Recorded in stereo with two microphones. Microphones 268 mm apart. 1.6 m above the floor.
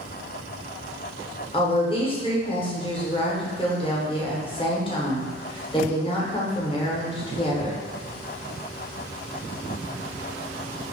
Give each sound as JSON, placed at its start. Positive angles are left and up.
{"t": 1.5, "sound": "a woman speaking", "side_deg": 20, "distance_m": 0.8}